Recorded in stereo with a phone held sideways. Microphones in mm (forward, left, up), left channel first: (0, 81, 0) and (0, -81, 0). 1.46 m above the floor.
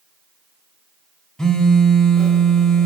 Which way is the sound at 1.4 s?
5° left (ahead or behind).